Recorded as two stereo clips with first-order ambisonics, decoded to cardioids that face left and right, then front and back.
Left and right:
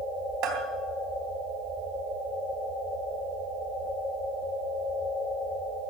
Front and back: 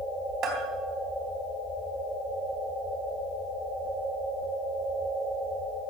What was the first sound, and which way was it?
A bell, 130° right.